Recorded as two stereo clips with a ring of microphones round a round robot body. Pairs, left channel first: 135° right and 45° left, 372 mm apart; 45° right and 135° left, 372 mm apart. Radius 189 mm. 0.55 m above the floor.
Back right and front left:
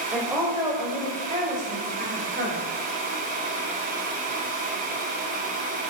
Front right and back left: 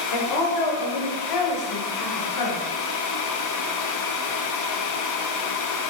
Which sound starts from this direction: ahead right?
A woman speaking, at 0.1 s.